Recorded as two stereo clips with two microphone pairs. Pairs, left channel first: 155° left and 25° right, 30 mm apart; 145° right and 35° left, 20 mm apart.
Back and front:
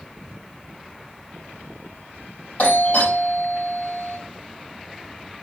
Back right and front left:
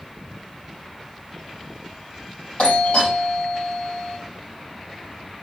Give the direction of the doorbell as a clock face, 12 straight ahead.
5 o'clock.